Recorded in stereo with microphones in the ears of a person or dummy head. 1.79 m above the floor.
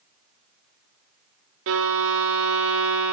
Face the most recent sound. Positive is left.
turn(degrees=-75)  # may be behind; listen again after turning